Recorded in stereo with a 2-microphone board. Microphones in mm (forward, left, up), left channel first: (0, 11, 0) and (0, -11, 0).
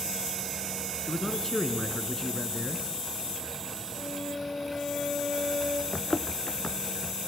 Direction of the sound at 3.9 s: 70° left (ahead or behind).